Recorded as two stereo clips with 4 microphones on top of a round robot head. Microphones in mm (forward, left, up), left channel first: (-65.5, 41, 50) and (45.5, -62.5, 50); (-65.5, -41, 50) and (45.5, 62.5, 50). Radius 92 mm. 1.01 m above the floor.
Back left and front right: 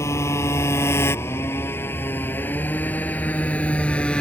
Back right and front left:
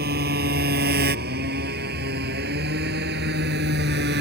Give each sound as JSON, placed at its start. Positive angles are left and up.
{"t": 0.0, "sound": "a motorcycle", "azimuth_deg": 65}